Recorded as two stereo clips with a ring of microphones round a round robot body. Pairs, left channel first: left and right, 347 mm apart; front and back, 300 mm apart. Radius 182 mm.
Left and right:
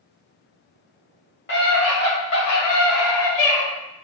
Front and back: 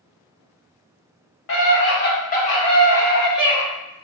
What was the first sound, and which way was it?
A scream, 40° left.